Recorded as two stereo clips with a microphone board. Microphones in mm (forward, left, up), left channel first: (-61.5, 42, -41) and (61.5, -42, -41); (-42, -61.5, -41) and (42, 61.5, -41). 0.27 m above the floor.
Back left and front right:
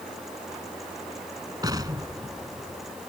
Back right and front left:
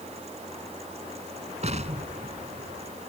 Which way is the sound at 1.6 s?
25° left.